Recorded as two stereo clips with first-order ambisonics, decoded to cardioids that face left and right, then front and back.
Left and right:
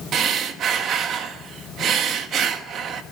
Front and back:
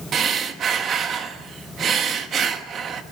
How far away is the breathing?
About 1.3 m.